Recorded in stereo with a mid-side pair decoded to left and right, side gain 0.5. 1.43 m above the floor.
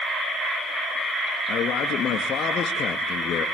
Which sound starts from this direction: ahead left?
A man speaking, at 1.5 s.